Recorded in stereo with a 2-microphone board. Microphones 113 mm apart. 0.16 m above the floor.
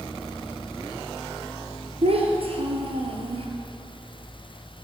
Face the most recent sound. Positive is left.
turn(degrees=-60)  # may be behind; listen again after turning